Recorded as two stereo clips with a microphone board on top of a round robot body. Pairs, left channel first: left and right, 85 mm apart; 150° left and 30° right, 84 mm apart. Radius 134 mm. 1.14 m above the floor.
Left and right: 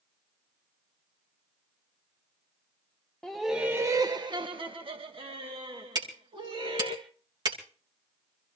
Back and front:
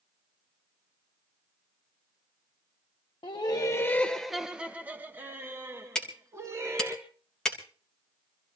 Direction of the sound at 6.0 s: 130° right.